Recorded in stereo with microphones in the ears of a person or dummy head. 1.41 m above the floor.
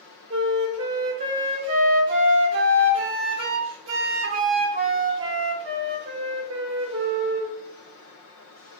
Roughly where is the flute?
Right.